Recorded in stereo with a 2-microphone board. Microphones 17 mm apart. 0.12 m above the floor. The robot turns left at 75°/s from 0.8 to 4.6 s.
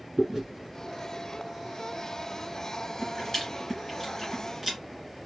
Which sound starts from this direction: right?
Chewing, at 0.2 s.